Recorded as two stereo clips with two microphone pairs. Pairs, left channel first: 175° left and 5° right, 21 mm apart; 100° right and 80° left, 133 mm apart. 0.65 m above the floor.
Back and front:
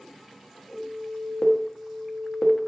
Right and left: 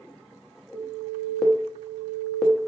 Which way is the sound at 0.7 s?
165° left.